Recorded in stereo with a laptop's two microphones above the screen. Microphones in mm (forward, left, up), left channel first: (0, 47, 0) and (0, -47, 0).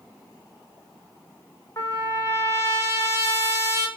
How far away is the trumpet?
About 1.1 m.